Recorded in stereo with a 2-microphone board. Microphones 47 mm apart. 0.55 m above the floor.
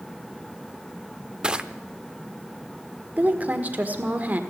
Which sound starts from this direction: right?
A woman speaking, at 3.2 s.